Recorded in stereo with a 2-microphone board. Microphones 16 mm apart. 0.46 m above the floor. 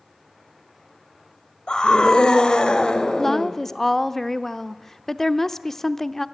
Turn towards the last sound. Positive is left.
turn(degrees=25)  # may be behind; listen again after turning